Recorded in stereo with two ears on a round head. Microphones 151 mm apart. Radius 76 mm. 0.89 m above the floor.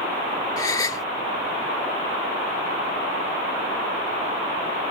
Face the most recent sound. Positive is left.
turn(degrees=20)  # may be behind; listen again after turning